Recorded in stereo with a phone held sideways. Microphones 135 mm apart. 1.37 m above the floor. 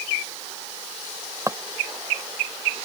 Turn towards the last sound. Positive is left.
turn(degrees=-25)  # may be behind; listen again after turning